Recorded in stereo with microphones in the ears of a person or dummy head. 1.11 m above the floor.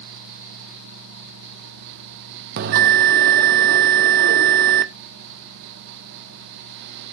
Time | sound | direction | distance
2.6 | a bell | 50° right (ahead or behind) | 0.5 m